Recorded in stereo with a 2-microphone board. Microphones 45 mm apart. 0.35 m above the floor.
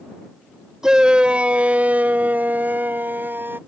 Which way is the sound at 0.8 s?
15° right (ahead or behind).